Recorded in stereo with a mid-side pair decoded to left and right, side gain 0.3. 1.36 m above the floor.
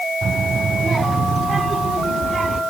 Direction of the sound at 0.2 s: 60° right.